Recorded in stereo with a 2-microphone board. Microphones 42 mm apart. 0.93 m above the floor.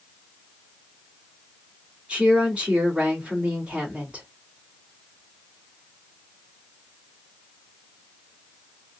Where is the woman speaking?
30° right (ahead or behind), 1.9 m.